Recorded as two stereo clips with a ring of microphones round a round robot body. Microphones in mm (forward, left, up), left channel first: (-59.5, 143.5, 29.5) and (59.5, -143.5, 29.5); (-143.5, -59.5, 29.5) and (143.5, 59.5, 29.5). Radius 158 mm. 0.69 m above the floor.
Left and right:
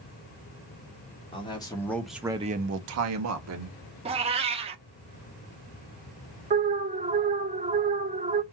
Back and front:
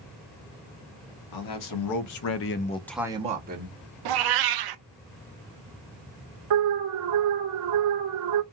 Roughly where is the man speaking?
Behind.